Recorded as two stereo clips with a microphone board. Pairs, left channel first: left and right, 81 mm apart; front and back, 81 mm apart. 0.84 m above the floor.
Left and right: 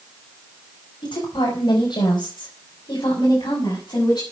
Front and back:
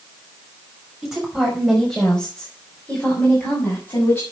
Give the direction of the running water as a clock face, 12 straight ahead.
I don't hear running water.